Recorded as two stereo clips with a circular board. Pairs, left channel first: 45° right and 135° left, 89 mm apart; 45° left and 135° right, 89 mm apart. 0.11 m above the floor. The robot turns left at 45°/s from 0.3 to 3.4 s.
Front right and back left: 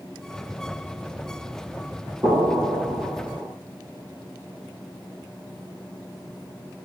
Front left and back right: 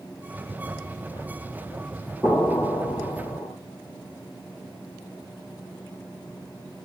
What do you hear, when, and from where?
2.2 s an explosion: 105° left, 3 m; by 3.5 s 55° left, 3 m